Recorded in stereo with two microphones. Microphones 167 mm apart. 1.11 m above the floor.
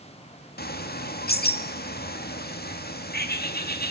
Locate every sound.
0.6 s a bird: 70° left (ahead or behind), 1.9 m